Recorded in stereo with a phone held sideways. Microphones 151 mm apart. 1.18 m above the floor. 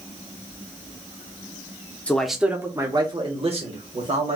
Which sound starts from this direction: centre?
A man speaking, at 2.1 s.